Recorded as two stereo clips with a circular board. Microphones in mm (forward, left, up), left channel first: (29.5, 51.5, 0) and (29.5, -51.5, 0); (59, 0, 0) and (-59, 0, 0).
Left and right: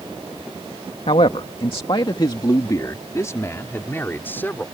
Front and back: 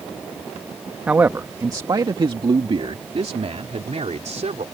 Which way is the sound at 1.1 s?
105° left.